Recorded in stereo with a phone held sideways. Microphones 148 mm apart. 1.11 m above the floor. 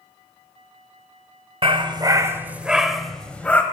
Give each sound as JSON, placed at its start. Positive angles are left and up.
{"t": 1.6, "sound": "a dog barking", "side_deg": -35, "distance_m": 0.9}